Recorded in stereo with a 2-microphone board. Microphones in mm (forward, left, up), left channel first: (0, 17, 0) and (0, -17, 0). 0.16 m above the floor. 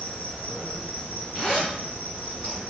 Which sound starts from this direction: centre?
A zipper, at 1.4 s.